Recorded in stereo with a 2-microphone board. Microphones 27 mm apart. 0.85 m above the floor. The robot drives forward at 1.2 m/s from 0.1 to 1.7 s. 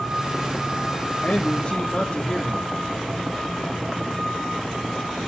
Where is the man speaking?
55° left (ahead or behind), 1.6 m; by 2.7 s 50° left (ahead or behind), 1.7 m.